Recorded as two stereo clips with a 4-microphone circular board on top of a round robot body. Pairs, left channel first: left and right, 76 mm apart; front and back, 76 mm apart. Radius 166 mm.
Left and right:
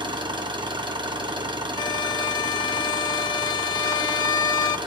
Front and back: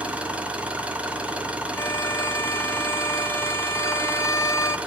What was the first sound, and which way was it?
An engine running, 105° right.